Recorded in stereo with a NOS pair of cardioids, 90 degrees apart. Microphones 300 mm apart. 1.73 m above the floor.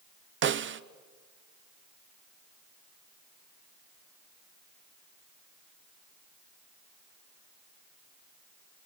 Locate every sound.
0.4 s a snare drum: 40° right, 0.8 m